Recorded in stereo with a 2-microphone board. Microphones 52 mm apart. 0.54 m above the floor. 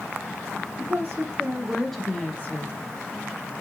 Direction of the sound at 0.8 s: 50° right (ahead or behind).